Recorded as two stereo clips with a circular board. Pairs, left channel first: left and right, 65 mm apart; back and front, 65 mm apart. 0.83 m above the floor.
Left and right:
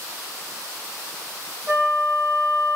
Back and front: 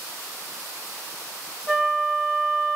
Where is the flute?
95° right, 1.0 m.